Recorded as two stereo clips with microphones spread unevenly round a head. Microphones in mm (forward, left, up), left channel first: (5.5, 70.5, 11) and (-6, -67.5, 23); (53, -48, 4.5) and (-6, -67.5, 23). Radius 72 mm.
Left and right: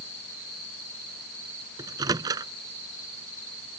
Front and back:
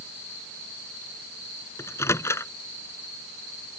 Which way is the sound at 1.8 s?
30° right.